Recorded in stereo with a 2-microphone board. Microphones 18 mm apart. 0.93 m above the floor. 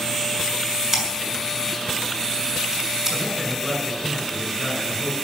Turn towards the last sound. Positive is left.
turn(degrees=0)  # may be behind; listen again after turning